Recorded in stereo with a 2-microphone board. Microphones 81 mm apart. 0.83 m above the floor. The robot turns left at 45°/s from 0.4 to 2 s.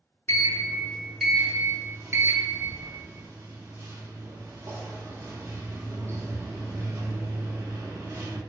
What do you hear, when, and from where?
0.3 s a sliding door: 35° left, 0.5 m; by 8.4 s 40° right, 0.5 m